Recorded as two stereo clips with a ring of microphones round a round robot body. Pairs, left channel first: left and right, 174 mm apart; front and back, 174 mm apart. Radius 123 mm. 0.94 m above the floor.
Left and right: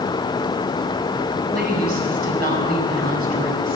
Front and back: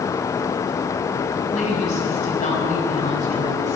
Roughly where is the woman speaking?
Ahead right.